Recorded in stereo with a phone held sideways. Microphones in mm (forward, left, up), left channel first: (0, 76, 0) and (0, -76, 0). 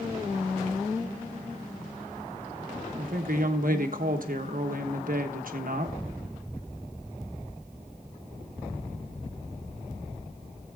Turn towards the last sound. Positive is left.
turn(degrees=-65)  # may be behind; listen again after turning